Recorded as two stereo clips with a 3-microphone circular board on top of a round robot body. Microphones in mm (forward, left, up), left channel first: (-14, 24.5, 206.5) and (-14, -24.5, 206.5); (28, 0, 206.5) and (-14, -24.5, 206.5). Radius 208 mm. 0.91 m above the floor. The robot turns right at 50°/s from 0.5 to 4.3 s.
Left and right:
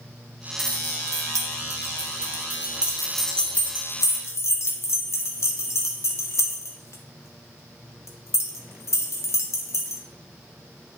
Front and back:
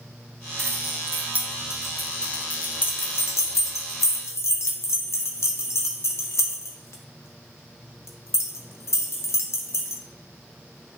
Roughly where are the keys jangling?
Behind right.